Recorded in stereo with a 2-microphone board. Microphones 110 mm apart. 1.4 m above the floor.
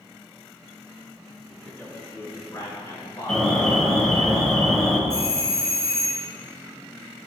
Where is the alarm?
Centre (ahead or behind), 1.1 m.